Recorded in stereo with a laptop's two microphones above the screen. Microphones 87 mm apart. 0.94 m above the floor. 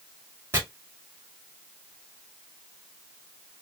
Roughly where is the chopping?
Right.